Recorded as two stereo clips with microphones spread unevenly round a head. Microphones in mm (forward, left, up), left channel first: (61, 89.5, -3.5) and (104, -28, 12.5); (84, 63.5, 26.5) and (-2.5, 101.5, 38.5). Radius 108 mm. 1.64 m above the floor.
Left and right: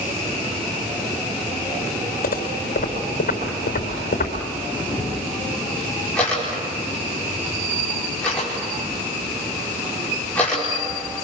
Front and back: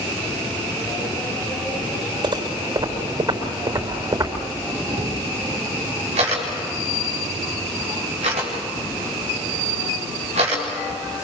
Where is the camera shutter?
165° right, 4.5 m.